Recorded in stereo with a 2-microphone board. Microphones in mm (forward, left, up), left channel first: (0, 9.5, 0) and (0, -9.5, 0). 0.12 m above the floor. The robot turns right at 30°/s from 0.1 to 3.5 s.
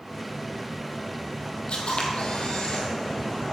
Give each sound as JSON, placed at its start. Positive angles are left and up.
{"t": 1.7, "sound": "a camera shutter", "azimuth_deg": 85, "distance_m": 1.5}